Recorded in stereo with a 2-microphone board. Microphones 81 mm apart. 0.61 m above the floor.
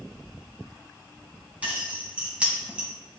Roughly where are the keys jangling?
Centre.